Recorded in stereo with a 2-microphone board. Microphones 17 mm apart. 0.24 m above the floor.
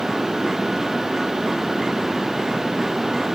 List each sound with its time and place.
Only background noise.